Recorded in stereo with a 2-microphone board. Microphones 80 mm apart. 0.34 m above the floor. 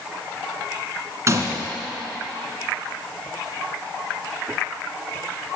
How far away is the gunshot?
About 1.4 m.